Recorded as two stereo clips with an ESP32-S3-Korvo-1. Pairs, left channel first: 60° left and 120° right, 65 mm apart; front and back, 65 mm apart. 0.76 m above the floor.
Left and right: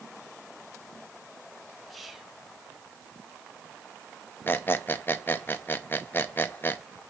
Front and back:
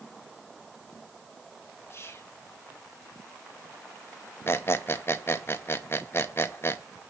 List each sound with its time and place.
1.9 s whispering: 30° right, 1.3 m
4.5 s a squeak: 25° left, 0.6 m